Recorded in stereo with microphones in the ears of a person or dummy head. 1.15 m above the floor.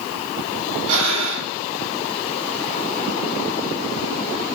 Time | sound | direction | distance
0.9 | breathing | 80° right | 4 m